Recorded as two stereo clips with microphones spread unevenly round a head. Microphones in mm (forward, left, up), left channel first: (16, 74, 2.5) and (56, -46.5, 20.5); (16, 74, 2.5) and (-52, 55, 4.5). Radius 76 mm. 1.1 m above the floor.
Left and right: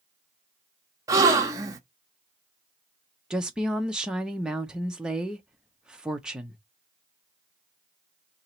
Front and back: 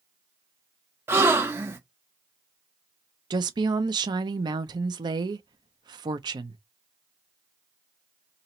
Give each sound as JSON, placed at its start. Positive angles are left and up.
{"t": 1.1, "sound": "a gasp", "azimuth_deg": -120, "distance_m": 0.6}
{"t": 3.3, "sound": "a woman speaking", "azimuth_deg": -160, "distance_m": 0.6}